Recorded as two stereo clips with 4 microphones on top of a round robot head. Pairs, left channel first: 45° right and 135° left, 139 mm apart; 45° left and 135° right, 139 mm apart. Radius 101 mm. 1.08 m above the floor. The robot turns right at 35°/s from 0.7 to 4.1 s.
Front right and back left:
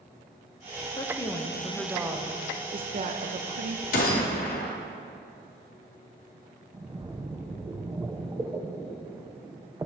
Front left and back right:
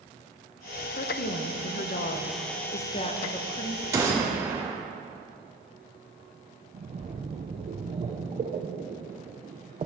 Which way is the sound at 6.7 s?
160° right.